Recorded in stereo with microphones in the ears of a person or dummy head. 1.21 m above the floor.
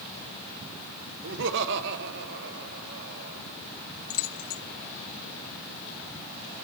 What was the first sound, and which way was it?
Laughter, 60° right (ahead or behind).